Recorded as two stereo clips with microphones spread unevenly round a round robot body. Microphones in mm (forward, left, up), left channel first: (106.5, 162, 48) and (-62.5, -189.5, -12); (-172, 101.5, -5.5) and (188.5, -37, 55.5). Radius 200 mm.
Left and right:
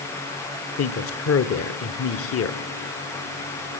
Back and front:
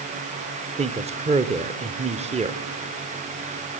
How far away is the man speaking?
About 1.1 m.